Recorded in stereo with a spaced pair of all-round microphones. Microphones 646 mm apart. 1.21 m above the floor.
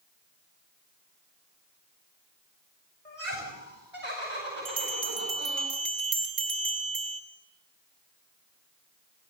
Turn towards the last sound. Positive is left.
turn(degrees=-80)